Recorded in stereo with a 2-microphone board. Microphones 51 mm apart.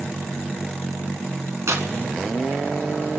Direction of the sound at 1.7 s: 65° right (ahead or behind).